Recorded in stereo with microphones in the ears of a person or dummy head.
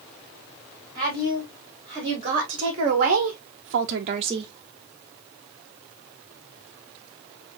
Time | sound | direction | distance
0.9 | a woman speaking | 30° right (ahead or behind) | 2 m